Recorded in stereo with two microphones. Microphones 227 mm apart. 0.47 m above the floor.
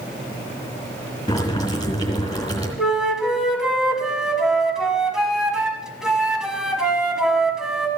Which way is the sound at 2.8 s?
Centre (ahead or behind).